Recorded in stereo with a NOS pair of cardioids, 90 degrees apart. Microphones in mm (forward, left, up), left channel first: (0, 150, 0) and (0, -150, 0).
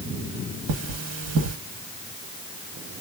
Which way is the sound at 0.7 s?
55° right.